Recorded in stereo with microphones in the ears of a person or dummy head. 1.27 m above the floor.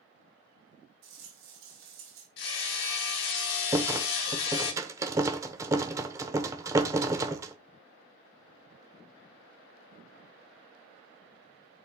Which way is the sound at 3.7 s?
15° right (ahead or behind).